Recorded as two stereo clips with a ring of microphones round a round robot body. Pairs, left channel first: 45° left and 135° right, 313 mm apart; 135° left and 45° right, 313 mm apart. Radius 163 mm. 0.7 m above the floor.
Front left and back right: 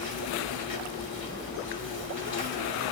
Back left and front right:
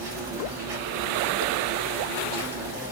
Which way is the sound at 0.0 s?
15° right.